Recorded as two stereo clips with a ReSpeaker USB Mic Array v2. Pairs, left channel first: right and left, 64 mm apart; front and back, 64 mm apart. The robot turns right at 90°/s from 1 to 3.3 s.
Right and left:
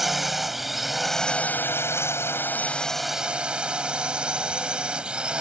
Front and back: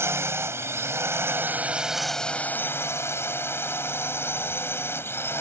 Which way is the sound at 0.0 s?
175° left.